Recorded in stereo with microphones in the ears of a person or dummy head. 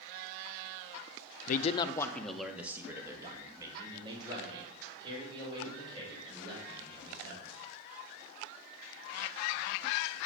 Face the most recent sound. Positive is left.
turn(degrees=-25)  # may be behind; listen again after turning